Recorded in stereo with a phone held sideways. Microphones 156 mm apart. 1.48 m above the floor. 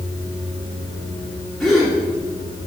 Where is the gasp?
Centre (ahead or behind), 2.5 m.